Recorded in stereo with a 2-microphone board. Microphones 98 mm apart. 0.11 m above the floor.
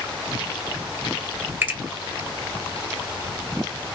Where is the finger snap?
25° right (ahead or behind), 1.5 m.